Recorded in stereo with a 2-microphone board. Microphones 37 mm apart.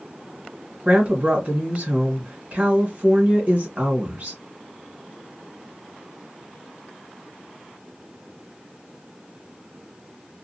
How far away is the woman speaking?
About 1.2 m.